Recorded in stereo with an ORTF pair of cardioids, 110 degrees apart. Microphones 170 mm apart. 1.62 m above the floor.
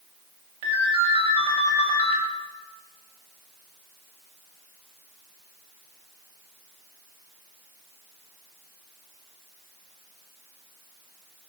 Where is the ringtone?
60° right, 3 m.